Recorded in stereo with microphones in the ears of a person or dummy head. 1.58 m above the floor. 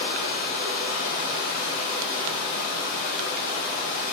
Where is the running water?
65° left (ahead or behind), 1.2 m.